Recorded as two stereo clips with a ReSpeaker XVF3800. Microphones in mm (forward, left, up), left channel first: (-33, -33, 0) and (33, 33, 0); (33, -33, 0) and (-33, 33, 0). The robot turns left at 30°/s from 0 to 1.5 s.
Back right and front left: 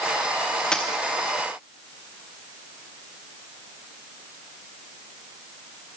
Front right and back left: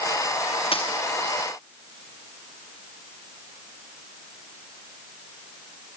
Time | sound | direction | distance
0.7 | a dropped coin | 55° right | 2.5 m